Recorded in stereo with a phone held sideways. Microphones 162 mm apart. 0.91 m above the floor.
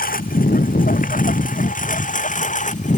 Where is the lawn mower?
60° left (ahead or behind); by 3.0 s 50° left (ahead or behind).